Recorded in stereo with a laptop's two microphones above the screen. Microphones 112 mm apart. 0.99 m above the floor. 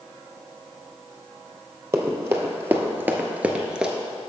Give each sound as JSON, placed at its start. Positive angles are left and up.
{"t": 1.9, "sound": "running footsteps", "side_deg": -25, "distance_m": 1.4}